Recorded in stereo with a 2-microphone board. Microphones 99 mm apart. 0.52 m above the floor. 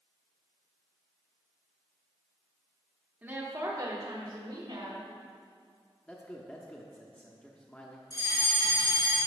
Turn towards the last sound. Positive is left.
turn(degrees=50)  # may be behind; listen again after turning